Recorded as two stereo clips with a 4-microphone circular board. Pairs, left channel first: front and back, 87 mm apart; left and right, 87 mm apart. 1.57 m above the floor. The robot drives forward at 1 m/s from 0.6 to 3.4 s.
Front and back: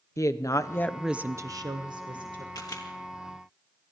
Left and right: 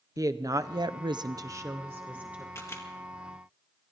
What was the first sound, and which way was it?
A woman speaking, 45° right.